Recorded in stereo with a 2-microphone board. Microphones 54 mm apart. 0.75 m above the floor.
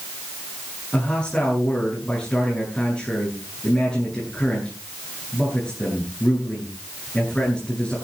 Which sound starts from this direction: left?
A man speaking, at 0.9 s.